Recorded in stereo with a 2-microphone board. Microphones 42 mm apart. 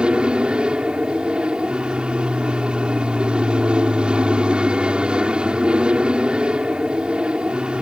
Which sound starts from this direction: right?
An aircraft, at 0.0 s.